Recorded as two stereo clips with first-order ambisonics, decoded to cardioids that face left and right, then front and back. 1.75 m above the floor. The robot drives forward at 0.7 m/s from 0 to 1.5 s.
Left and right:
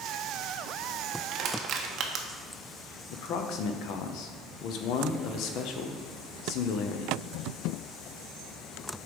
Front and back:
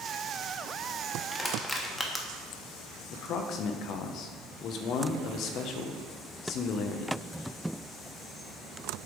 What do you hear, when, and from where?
1.3 s crushing: 65° right, 0.8 m; by 2.3 s 80° right, 0.8 m
3.1 s a man speaking: 50° left, 0.8 m